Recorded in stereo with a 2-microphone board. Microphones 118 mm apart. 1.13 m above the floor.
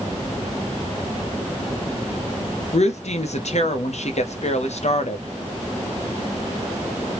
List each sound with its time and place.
2.7 s a woman speaking: 65° left (ahead or behind), 0.9 m